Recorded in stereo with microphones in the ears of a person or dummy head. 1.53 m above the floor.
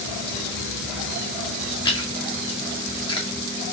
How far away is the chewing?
About 1.8 m.